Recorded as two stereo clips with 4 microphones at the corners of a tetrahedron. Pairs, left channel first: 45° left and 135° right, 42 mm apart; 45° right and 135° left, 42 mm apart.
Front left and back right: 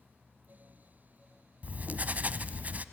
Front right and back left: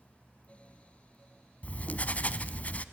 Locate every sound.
1.6 s writing: 90° right, 0.9 m